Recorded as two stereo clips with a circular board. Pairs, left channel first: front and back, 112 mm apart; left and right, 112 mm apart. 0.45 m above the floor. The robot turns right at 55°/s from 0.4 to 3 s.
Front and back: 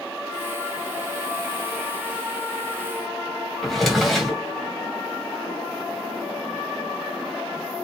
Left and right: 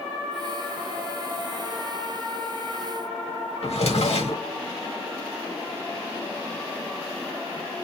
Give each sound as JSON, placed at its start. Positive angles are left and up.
{"t": 3.6, "sound": "a drawer", "azimuth_deg": 90, "distance_m": 1.6}